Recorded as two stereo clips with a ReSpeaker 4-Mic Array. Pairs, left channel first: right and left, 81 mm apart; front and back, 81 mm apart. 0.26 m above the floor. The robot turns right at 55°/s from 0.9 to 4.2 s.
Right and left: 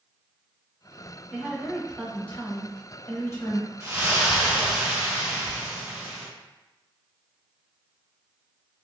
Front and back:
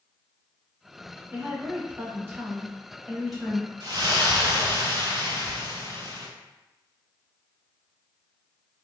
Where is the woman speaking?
160° left, 1.1 m; by 3.7 s 70° right, 1.1 m.